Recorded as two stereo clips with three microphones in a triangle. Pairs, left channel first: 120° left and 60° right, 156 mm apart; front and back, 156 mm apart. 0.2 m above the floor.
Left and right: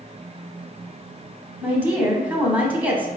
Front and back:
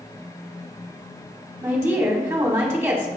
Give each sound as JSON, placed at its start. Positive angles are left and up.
{"t": 1.6, "sound": "a woman speaking", "azimuth_deg": -125, "distance_m": 1.1}